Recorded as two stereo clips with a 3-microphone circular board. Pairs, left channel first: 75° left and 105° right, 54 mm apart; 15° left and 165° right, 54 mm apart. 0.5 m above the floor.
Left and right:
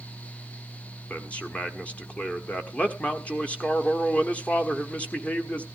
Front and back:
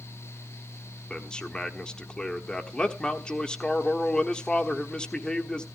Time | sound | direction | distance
1.1 | a man speaking | 65° left | 1.3 m